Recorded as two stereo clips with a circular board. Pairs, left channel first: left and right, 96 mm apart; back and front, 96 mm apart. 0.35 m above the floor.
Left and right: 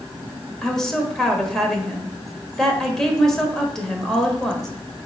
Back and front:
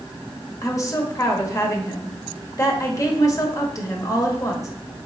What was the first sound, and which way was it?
A woman speaking, 170° left.